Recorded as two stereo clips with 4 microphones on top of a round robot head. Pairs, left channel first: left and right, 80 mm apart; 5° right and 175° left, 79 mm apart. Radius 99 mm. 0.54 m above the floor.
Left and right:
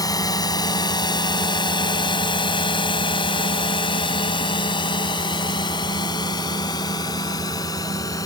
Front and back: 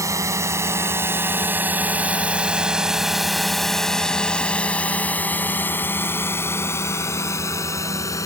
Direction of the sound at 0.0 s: 130° left.